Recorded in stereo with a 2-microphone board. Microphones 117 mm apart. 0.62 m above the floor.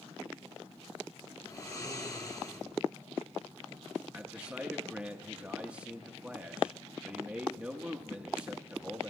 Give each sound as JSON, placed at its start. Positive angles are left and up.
{"t": 1.4, "sound": "snoring", "side_deg": 30, "distance_m": 0.9}
{"t": 4.1, "sound": "a man speaking", "side_deg": -10, "distance_m": 0.7}